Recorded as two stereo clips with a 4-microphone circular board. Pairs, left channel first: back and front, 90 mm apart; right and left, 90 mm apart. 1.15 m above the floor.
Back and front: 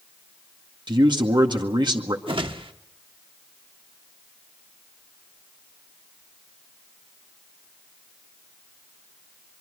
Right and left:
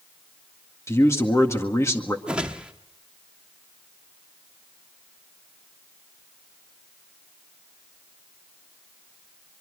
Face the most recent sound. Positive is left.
turn(degrees=15)